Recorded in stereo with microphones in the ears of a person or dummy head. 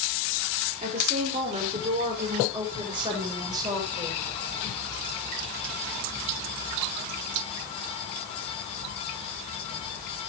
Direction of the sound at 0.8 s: 40° right (ahead or behind).